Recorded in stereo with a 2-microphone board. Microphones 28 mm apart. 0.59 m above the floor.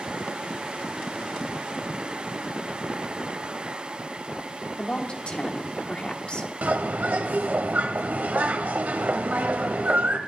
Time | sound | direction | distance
4.8 | a woman speaking | 40° left (ahead or behind) | 1.4 m
6.6 | a bird | 75° right (ahead or behind) | 1.0 m